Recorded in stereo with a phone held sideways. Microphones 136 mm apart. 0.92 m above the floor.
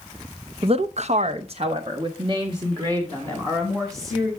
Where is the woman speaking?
45° right (ahead or behind), 0.5 m; by 4.3 s 30° right (ahead or behind), 2.5 m.